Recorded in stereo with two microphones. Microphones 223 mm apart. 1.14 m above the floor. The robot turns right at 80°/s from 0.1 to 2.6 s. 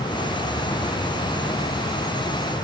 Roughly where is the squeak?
I don't hear a squeak.